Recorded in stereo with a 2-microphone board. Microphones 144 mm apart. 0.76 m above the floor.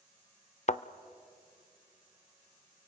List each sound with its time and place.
0.7 s a thud: 50° left (ahead or behind), 0.5 m